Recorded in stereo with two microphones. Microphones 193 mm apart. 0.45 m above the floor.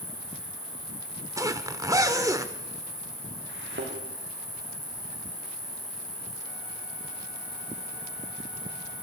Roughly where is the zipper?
Centre.